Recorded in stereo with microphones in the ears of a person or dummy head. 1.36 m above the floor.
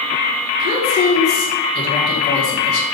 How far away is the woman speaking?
About 1.8 m.